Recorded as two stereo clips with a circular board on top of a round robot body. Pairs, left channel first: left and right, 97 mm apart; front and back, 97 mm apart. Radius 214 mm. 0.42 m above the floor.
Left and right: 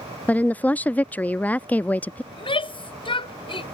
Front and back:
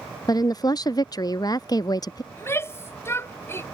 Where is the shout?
65° left.